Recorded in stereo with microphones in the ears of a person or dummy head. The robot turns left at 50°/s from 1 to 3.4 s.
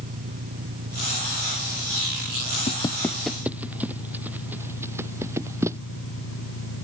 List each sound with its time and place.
0.0 s an engine running: 140° right; by 6.8 s 100° left
2.7 s footsteps: 35° left (ahead or behind); by 5.8 s 15° right (ahead or behind)